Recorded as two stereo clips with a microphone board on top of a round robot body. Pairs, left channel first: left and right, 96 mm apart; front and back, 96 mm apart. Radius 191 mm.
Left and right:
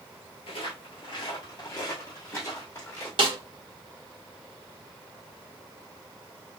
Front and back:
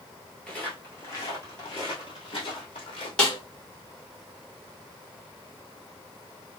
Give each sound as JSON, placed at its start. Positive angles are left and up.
{"t": 0.5, "sound": "footsteps", "azimuth_deg": 80, "distance_m": 0.9}
{"t": 3.2, "sound": "a snare drum", "azimuth_deg": -75, "distance_m": 2.0}